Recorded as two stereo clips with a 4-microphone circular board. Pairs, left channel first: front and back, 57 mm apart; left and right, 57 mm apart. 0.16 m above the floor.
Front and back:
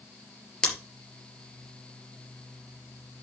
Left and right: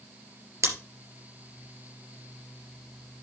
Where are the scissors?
75° right, 3.5 m.